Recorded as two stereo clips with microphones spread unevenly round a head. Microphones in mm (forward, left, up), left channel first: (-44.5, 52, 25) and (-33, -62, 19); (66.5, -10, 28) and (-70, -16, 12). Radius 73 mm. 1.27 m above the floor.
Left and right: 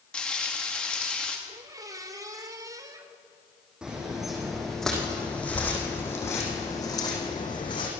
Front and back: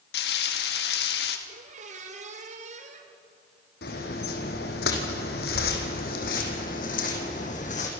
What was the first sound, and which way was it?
Frying, 15° left.